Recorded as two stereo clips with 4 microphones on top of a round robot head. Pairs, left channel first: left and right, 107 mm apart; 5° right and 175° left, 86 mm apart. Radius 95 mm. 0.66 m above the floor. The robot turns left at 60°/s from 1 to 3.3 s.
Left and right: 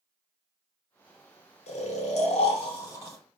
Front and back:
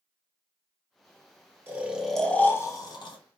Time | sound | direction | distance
1.7 | snoring | 110° left | 1.1 m